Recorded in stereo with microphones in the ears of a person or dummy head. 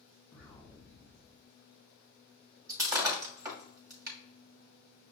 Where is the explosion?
10° left (ahead or behind), 1.7 m.